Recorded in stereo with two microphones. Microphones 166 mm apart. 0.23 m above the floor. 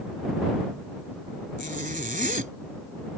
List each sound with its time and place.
1.6 s a zipper: 55° right (ahead or behind)